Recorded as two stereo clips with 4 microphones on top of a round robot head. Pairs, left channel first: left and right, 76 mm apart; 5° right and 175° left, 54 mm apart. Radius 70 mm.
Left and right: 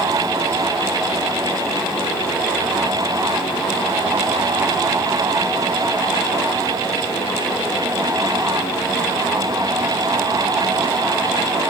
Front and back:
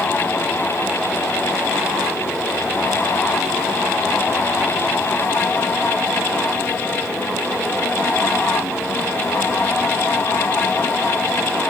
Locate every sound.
Only background noise.